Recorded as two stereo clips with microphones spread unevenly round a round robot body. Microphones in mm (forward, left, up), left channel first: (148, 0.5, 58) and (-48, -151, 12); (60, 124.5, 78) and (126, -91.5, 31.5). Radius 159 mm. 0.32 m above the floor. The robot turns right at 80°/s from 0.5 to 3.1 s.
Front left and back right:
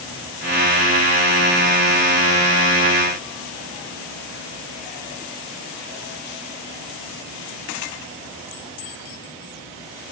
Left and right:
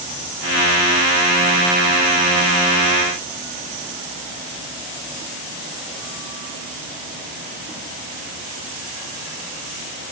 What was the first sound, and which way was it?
Only background noise.